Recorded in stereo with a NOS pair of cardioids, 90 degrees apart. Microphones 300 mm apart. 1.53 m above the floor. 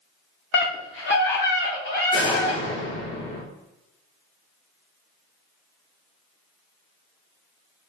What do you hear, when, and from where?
0.5 s a scream: 40° left, 0.9 m
2.1 s a door slam: 45° left, 2 m